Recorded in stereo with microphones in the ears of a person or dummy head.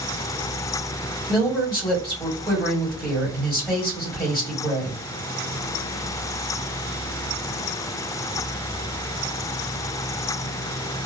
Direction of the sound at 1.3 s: 10° left (ahead or behind).